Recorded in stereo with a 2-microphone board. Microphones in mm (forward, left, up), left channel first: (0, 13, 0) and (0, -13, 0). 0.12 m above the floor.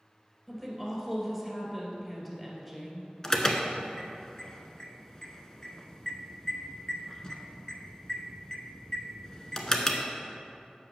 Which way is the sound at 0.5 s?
5° left (ahead or behind).